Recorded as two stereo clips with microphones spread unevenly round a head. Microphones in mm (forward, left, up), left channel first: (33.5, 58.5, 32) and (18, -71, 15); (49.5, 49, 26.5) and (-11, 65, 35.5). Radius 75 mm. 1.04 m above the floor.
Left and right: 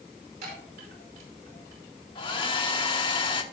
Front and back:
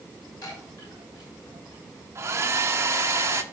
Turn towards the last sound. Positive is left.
turn(degrees=130)